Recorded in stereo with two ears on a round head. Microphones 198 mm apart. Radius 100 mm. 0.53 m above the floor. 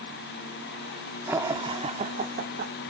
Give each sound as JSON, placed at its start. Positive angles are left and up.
{"t": 1.3, "sound": "laughter", "side_deg": -10, "distance_m": 1.2}